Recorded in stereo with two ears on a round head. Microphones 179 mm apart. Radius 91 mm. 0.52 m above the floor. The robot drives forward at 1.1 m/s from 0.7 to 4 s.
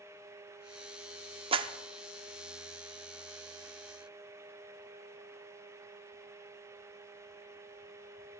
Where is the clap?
25° right (ahead or behind), 0.5 m; by 1.7 s 20° right (ahead or behind), 0.6 m.